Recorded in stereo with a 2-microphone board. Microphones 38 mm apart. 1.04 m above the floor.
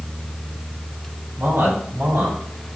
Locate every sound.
1.4 s a man speaking: 85° right, 4 m; by 2.4 s 80° right, 3.5 m